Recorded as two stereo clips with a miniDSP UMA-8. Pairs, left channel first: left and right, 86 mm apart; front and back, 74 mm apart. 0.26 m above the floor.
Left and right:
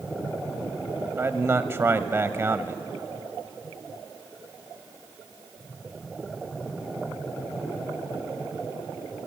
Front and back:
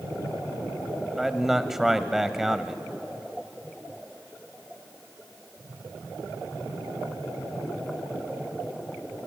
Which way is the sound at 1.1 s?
100° right.